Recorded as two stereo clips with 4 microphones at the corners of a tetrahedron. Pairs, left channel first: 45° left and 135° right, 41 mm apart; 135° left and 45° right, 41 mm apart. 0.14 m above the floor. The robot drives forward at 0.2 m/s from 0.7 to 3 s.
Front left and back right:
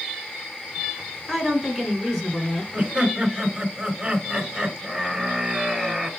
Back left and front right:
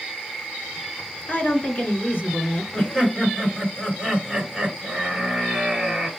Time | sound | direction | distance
1.3 | a woman speaking | 120° left | 2.0 m
2.7 | laughter | 175° right | 2 m